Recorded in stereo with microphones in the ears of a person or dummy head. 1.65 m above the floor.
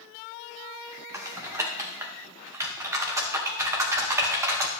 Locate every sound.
1.1 s typing on a keyboard: 15° right (ahead or behind), 0.7 m